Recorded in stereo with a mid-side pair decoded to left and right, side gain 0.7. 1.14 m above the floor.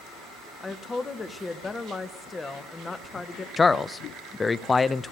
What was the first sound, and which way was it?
A woman speaking, 20° left.